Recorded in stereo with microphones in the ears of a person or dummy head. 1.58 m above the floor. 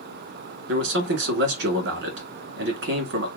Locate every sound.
0.7 s a man speaking: 65° right (ahead or behind), 1.3 m